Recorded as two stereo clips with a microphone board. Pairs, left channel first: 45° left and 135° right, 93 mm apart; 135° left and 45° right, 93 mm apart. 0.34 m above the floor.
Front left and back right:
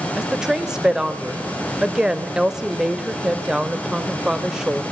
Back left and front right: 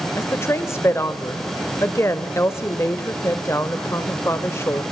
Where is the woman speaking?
150° left, 0.9 m.